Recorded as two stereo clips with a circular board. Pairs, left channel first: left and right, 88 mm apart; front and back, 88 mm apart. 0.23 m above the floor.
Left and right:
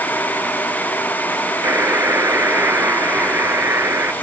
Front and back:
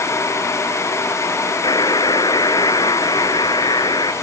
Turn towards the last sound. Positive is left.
turn(degrees=-30)